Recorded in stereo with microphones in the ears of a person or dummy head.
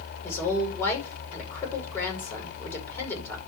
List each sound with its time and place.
0.2 s a woman speaking: 15° left (ahead or behind), 5 m